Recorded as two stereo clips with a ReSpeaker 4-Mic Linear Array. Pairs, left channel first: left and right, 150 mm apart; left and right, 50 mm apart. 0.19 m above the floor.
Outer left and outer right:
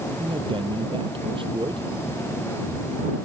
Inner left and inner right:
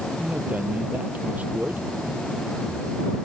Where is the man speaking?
35° right (ahead or behind).